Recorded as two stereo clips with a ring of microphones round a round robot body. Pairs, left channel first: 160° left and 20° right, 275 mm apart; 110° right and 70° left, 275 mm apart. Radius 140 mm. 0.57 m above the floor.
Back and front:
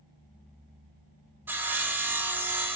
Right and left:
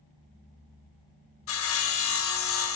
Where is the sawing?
105° right, 0.8 m.